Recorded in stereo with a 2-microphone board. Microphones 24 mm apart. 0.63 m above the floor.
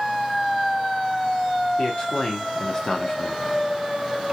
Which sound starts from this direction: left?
A man speaking, at 1.8 s.